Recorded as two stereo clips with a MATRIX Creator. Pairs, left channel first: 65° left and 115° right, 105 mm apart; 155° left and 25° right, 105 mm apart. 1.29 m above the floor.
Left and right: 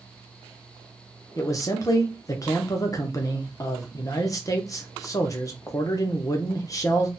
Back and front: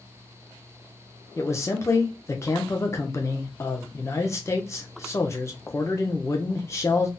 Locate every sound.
1.4 s a man speaking: 105° left, 0.6 m